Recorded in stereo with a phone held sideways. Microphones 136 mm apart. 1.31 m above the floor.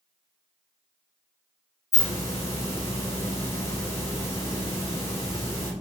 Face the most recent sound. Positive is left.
turn(degrees=25)  # may be behind; listen again after turning